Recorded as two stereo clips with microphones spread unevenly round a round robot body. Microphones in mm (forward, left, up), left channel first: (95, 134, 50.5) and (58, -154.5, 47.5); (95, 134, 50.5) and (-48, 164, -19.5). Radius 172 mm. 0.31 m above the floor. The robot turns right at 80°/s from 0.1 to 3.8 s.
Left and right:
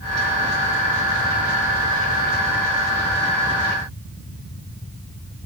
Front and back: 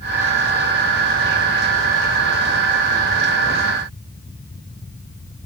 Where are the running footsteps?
No running footsteps in this recording.